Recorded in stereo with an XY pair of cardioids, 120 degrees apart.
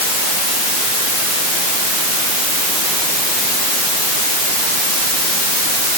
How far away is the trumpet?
No trumpet in this recording.